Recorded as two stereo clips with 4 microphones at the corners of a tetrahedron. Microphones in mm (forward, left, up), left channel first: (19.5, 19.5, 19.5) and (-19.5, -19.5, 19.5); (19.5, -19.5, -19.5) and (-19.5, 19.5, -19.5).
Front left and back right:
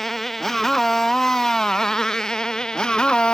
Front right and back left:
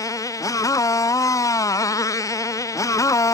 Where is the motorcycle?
40° right; by 3.3 s 30° right.